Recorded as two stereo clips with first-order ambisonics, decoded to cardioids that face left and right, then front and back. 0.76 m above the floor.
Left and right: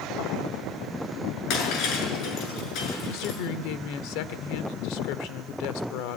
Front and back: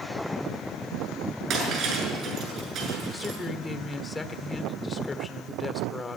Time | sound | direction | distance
1.5 | breaking glass | 130° left | 7 m
3.1 | a woman speaking | 80° left | 1.8 m